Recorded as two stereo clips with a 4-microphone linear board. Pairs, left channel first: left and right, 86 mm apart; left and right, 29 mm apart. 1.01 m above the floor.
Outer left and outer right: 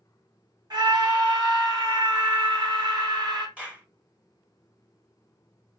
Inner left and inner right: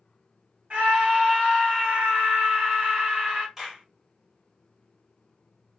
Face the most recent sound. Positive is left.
turn(degrees=-15)  # may be behind; listen again after turning